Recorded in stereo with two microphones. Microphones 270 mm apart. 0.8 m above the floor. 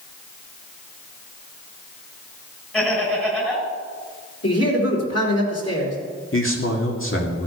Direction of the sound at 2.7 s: 5° left (ahead or behind).